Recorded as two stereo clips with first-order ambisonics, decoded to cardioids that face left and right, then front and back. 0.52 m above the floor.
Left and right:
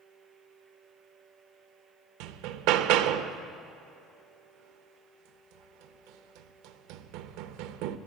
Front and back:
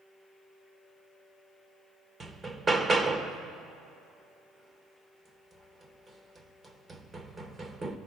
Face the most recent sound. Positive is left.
turn(degrees=-105)